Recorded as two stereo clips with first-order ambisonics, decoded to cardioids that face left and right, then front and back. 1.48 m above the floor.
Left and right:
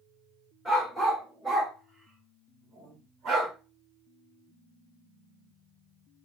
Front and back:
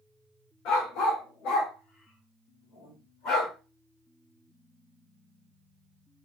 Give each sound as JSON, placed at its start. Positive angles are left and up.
{"t": 0.7, "sound": "a dog barking", "azimuth_deg": 0, "distance_m": 1.7}